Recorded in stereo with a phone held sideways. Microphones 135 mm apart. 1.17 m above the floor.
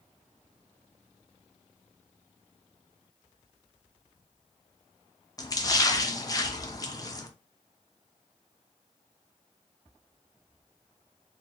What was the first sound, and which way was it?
A splash, 25° left (ahead or behind).